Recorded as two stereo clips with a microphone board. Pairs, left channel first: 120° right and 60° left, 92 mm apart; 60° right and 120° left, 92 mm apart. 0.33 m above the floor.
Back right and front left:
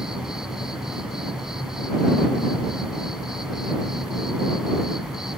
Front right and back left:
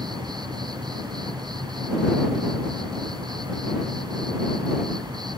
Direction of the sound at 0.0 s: 145° left.